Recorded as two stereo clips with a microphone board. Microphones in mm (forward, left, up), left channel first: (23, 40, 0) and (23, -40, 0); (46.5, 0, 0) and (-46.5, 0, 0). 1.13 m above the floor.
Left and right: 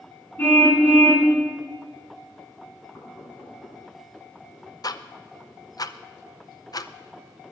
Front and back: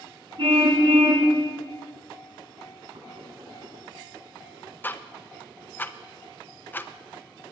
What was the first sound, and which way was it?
A car horn, 160° left.